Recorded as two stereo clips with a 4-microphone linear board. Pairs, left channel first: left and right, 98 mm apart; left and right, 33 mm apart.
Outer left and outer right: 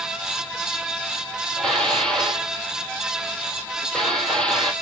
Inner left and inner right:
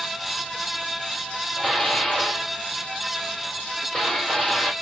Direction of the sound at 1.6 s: 5° left (ahead or behind).